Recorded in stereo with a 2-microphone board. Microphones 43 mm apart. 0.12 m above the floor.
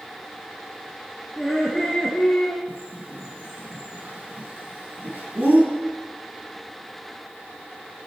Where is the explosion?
No explosion in this recording.